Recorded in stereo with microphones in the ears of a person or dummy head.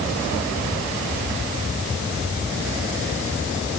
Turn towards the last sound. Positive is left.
No sound to turn to.